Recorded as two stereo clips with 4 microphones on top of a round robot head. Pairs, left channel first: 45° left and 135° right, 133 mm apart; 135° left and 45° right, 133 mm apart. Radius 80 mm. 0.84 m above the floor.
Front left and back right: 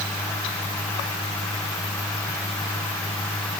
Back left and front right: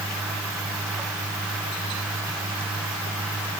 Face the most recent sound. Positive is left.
No sound to turn to.